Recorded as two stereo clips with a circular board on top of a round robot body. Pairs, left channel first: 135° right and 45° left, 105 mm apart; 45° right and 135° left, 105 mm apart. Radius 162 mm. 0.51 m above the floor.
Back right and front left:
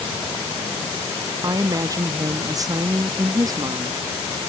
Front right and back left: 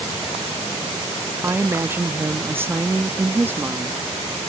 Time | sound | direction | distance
1.4 | a woman speaking | 75° left | ?